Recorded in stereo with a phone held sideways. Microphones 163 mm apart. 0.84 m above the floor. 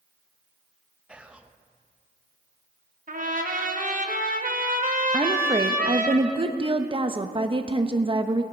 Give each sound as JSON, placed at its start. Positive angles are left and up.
{"t": 1.1, "sound": "whispering", "side_deg": -5, "distance_m": 0.7}
{"t": 3.1, "sound": "a trumpet", "side_deg": -55, "distance_m": 1.1}
{"t": 5.1, "sound": "a woman speaking", "side_deg": -30, "distance_m": 0.7}